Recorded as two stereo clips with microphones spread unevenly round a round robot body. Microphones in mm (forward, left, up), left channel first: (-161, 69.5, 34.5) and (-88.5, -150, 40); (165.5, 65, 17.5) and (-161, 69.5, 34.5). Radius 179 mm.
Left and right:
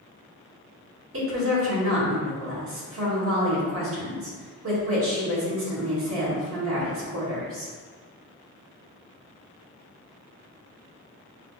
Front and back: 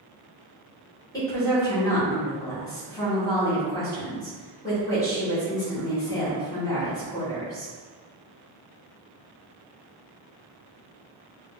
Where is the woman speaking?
80° right, 1.7 m.